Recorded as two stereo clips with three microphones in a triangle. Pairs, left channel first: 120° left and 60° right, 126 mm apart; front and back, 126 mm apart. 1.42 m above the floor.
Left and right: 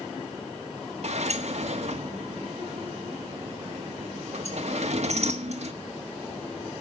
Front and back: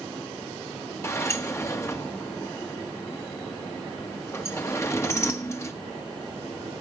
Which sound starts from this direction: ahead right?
A sliding door, at 1.0 s.